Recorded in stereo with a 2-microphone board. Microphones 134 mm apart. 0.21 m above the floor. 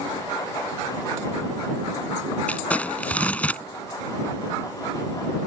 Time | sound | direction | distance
2.5 | crumpling | 10° left (ahead or behind) | ?